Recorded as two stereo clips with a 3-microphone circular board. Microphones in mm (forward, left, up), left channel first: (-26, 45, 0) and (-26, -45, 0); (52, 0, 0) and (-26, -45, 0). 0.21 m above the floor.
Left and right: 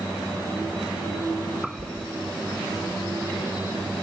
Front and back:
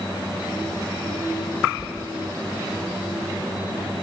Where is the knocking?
70° right, 4.5 m.